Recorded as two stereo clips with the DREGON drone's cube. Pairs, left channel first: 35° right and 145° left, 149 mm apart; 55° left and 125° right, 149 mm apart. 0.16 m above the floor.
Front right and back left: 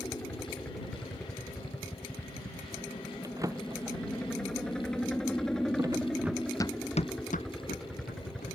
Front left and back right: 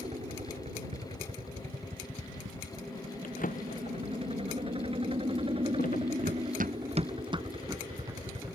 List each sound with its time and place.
0.0 s a helicopter: 110° right; by 8.6 s 125° right
3.2 s a drawer: 80° left
6.2 s running footsteps: 140° right; by 8.6 s 50° right